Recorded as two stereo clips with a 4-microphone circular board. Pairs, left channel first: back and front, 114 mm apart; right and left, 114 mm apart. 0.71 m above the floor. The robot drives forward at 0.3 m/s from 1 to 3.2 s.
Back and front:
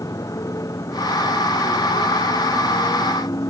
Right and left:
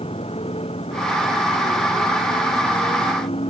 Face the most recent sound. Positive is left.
turn(degrees=-120)